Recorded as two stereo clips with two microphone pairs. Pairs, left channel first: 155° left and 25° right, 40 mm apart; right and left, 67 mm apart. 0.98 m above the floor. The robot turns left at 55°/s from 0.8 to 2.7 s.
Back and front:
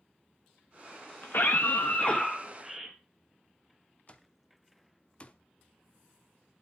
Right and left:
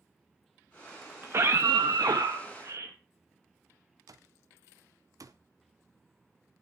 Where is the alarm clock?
95° left, 0.8 m.